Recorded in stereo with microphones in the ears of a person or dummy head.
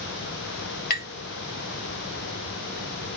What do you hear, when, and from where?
0.9 s tapping: 50° left (ahead or behind), 1.0 m